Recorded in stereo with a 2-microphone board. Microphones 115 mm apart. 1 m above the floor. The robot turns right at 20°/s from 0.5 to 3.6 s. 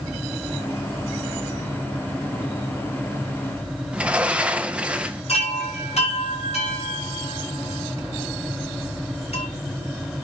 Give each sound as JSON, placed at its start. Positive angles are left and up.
{"t": 3.9, "sound": "a sliding door", "side_deg": -10, "distance_m": 0.7}
{"t": 5.3, "sound": "a chime", "side_deg": 70, "distance_m": 5.5}